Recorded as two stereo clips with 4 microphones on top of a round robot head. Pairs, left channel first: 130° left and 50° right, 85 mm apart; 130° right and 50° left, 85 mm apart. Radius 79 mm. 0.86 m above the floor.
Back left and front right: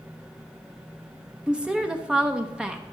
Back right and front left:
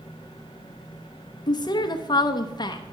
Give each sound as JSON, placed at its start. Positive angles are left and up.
{"t": 1.5, "sound": "a woman speaking", "azimuth_deg": -130, "distance_m": 0.8}